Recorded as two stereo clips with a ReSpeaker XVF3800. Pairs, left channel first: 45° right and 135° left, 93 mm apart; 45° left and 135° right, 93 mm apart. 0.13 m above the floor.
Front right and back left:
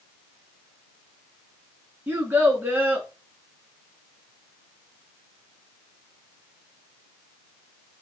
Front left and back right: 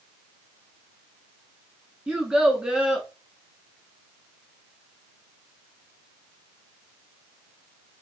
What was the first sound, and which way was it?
A child speaking, 160° left.